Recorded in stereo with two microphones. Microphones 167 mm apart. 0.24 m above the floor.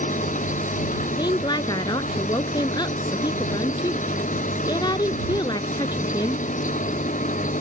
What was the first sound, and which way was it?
An engine running, 50° left (ahead or behind).